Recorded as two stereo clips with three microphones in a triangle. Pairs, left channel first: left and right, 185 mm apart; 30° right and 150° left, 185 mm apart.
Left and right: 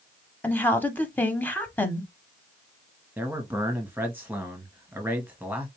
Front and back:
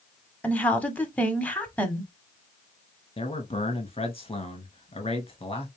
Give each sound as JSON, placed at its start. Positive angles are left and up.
{"t": 0.4, "sound": "a woman speaking", "azimuth_deg": 35, "distance_m": 1.1}
{"t": 3.2, "sound": "a man speaking", "azimuth_deg": -20, "distance_m": 1.7}